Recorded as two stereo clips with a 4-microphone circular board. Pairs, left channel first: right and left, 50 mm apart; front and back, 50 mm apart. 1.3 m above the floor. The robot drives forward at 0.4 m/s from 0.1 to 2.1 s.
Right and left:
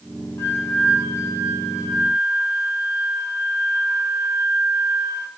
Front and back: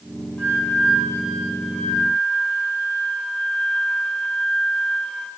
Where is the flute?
70° right, 3 m; by 5.3 s 80° right, 3 m.